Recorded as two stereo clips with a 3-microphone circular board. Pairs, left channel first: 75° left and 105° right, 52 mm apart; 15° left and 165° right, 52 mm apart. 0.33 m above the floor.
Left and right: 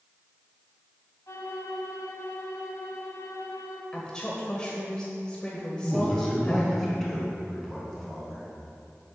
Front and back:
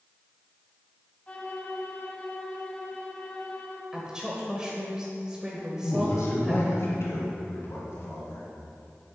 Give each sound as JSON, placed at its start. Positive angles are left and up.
{"t": 1.3, "sound": "a violin", "azimuth_deg": 80, "distance_m": 1.3}
{"t": 3.9, "sound": "a woman speaking", "azimuth_deg": 130, "distance_m": 1.3}
{"t": 5.8, "sound": "a man speaking", "azimuth_deg": -10, "distance_m": 3.5}